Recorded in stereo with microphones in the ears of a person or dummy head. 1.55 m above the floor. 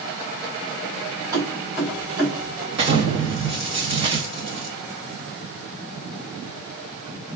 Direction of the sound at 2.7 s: 35° right (ahead or behind).